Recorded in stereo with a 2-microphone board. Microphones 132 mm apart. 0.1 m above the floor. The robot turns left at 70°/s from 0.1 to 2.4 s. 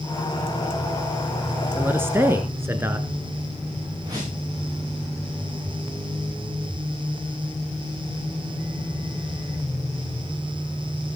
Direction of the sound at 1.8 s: 15° right (ahead or behind).